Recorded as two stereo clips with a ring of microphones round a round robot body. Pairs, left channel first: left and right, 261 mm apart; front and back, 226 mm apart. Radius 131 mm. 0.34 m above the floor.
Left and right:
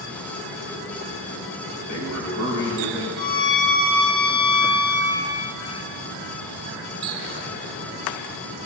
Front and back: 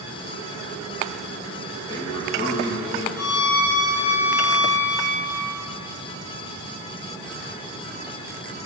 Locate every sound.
1.8 s a man speaking: 70° left, 6 m
3.2 s a violin: 15° left, 4 m